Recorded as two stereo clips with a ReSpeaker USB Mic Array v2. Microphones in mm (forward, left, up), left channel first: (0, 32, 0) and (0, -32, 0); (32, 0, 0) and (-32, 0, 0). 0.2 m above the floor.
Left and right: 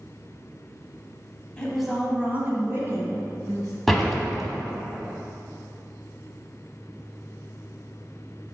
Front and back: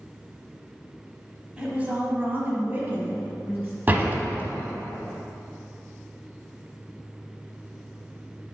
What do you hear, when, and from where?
1.6 s a woman speaking: 135° left, 1.1 m; by 3.7 s 120° right, 2.5 m
3.9 s a door slam: straight behind, 0.9 m